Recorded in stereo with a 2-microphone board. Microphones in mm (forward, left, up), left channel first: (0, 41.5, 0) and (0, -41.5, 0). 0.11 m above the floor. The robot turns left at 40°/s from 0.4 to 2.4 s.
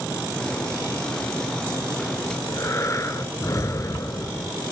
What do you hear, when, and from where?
2.3 s breathing: 40° left (ahead or behind), 0.7 m